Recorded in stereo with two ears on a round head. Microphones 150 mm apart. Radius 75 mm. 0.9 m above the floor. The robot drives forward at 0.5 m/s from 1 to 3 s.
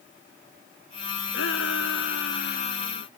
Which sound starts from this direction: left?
A shout, at 1.3 s.